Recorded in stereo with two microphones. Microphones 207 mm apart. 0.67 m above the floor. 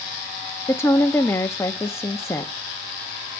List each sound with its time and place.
0.7 s a woman speaking: 15° left (ahead or behind), 0.5 m